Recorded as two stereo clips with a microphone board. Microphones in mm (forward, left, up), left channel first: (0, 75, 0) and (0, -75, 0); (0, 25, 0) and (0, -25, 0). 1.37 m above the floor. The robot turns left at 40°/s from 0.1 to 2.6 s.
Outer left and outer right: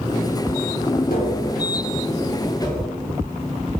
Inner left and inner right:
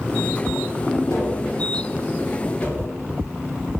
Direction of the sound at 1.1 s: 80° left.